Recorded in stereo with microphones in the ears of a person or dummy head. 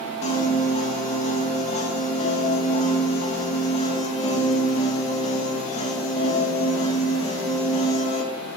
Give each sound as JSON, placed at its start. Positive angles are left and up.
{"t": 0.2, "sound": "a piano", "side_deg": 35, "distance_m": 1.4}